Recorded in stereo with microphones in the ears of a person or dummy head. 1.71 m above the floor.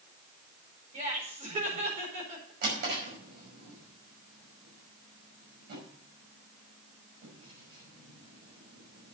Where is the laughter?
30° right (ahead or behind), 4.5 m.